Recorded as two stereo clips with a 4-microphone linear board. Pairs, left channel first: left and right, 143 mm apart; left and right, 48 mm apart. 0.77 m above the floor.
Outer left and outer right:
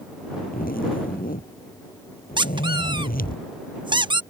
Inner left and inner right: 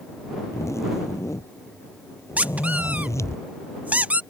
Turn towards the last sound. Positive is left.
turn(degrees=-30)  # may be behind; listen again after turning